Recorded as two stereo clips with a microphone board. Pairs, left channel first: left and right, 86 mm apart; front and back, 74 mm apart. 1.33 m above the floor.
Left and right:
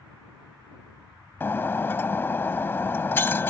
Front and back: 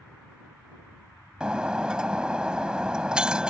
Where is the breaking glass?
115° left.